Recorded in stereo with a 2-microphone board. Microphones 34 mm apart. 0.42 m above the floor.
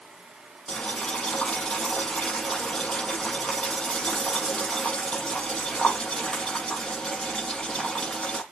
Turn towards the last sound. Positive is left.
turn(degrees=20)  # may be behind; listen again after turning